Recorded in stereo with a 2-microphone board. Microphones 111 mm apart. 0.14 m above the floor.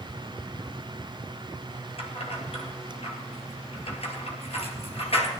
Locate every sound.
2.0 s keys jangling: 60° left (ahead or behind), 2.5 m